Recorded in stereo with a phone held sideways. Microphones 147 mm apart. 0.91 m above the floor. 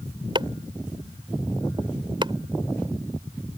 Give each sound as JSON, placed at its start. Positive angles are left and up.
{"t": 0.3, "sound": "chopping", "side_deg": -35}